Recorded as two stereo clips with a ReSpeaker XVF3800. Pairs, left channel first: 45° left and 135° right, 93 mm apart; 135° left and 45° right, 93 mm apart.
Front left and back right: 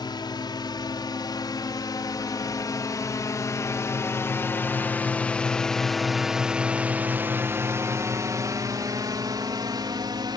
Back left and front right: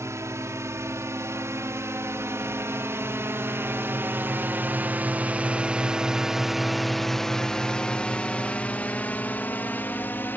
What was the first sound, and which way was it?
A drone, 10° left.